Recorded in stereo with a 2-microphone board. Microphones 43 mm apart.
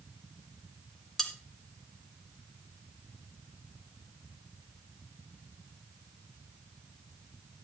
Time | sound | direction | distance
1.2 | cutlery clinking | 10° left (ahead or behind) | 1.6 m